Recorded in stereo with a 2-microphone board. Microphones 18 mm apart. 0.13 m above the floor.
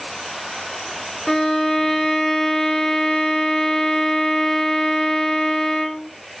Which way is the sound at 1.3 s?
30° left (ahead or behind).